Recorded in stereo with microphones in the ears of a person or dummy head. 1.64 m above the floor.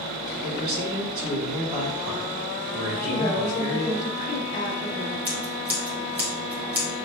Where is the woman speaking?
40° left (ahead or behind), 1.3 m.